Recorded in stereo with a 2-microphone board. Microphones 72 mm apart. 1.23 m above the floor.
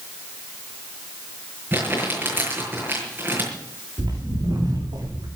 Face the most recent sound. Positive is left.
turn(degrees=-75)  # may be behind; listen again after turning